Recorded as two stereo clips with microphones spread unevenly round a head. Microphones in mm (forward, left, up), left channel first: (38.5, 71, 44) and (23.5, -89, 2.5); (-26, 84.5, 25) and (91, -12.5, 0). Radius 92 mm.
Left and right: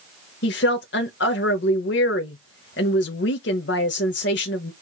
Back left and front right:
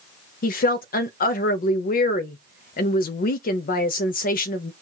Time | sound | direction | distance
0.4 | a woman speaking | 115° left | 0.6 m